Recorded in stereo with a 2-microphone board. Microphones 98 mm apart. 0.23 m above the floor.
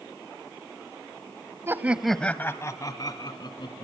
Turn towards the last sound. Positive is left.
turn(degrees=60)  # may be behind; listen again after turning